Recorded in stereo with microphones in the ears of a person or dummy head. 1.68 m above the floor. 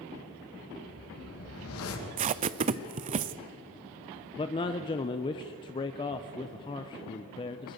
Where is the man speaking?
25° left (ahead or behind), 0.7 m.